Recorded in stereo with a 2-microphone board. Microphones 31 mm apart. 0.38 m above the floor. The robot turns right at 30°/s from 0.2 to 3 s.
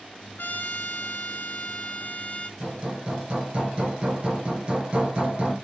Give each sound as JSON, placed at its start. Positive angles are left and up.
{"t": 0.4, "sound": "a trumpet", "azimuth_deg": 80, "distance_m": 1.1}
{"t": 2.6, "sound": "hammering", "side_deg": -40, "distance_m": 4.0}